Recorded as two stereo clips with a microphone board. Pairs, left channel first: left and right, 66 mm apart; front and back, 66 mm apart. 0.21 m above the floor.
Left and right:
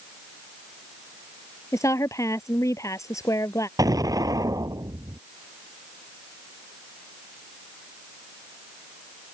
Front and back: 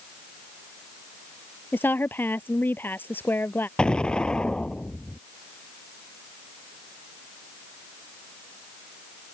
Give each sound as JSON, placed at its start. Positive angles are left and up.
{"t": 1.7, "sound": "a woman speaking", "azimuth_deg": 55}
{"t": 3.8, "sound": "an explosion", "azimuth_deg": -75}